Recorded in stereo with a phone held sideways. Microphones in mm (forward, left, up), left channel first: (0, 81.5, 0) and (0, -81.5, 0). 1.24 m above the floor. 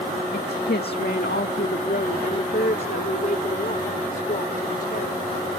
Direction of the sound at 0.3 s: 80° left.